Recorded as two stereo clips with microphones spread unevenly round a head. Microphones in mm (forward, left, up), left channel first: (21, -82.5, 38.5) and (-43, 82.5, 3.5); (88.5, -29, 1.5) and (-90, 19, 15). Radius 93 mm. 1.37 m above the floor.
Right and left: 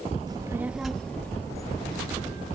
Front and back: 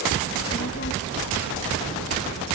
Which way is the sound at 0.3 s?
40° left.